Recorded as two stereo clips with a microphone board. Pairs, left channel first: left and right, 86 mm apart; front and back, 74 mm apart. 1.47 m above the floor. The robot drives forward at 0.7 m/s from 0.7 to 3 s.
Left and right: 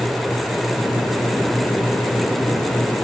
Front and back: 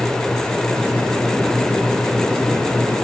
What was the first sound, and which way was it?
Only background noise.